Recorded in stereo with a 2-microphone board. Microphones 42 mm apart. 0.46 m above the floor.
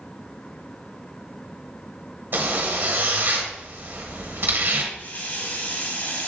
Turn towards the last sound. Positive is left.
turn(degrees=50)  # may be behind; listen again after turning